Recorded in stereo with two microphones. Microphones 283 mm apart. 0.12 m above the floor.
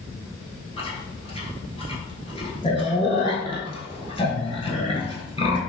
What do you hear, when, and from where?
0.8 s chewing: 20° left (ahead or behind), 0.7 m